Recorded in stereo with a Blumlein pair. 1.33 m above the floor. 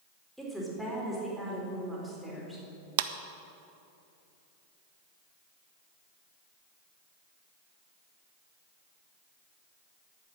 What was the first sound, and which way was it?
A woman speaking, straight ahead.